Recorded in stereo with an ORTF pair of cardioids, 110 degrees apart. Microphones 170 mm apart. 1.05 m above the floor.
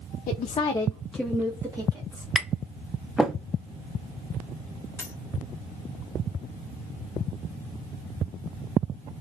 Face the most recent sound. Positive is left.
turn(degrees=15)